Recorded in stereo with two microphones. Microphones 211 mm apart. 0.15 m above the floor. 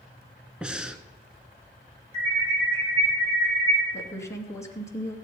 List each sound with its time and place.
0.6 s breathing: 5° right (ahead or behind), 0.9 m
2.1 s an alarm: 30° right (ahead or behind), 8 m
3.9 s a woman speaking: 15° left (ahead or behind), 2 m